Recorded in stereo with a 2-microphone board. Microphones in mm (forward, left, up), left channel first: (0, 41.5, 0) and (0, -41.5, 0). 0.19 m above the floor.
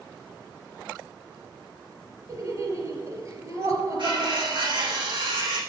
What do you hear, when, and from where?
2.3 s laughter: 40° right (ahead or behind), 3.5 m
4.0 s cutlery clinking: 75° right (ahead or behind), 6 m